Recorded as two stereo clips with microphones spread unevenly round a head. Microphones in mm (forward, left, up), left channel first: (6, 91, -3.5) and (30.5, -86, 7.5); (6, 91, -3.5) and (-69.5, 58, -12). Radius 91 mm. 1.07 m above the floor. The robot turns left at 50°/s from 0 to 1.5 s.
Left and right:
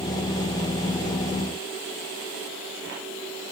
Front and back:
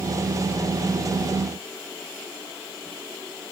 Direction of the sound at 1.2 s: 70° left.